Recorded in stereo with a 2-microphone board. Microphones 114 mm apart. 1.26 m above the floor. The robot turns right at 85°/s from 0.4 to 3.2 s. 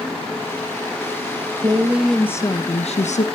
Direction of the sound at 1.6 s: 40° right.